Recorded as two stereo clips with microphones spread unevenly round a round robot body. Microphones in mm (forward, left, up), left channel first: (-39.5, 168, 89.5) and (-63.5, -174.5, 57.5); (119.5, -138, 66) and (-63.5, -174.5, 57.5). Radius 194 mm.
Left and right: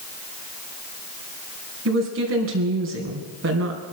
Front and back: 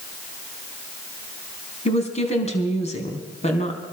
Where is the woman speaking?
45° right, 3.5 m.